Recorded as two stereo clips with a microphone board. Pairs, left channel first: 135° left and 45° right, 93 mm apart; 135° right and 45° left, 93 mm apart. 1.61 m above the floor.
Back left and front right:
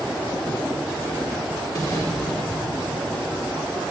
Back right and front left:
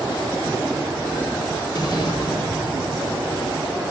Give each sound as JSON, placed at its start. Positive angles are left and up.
{"t": 1.8, "sound": "an explosion", "azimuth_deg": -175, "distance_m": 5.0}